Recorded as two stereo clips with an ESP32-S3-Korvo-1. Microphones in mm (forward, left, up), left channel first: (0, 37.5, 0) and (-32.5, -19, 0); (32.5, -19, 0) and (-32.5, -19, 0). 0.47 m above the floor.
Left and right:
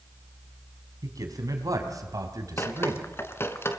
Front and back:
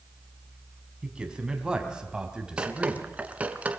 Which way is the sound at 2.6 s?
110° left.